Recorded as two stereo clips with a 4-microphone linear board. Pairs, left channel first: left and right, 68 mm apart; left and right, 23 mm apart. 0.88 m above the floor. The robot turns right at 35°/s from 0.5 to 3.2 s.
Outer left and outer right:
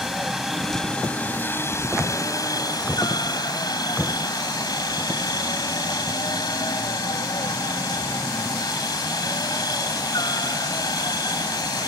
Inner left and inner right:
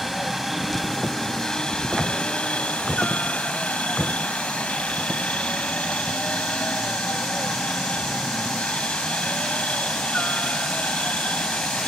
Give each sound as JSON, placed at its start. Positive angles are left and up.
{"t": 0.0, "sound": "a helicopter", "azimuth_deg": -5}